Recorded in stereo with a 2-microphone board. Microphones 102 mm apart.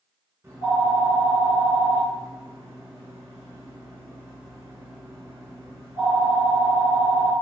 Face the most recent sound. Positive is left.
turn(degrees=-25)  # may be behind; listen again after turning